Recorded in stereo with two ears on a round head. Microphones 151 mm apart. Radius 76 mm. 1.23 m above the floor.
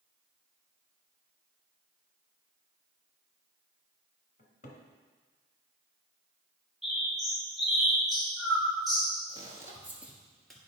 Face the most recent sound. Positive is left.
turn(degrees=5)  # may be behind; listen again after turning